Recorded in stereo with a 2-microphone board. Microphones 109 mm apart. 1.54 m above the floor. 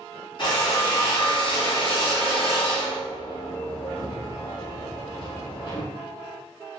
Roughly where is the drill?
Left.